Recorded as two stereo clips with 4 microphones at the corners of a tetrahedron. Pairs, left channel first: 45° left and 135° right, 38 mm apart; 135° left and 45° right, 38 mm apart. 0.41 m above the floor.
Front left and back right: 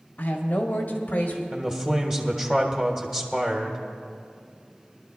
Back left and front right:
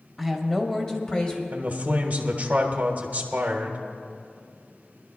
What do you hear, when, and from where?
0.2 s a woman speaking: 50° left, 1.6 m; by 1.4 s 80° left, 1.7 m
1.5 s a man speaking: 75° right, 1.2 m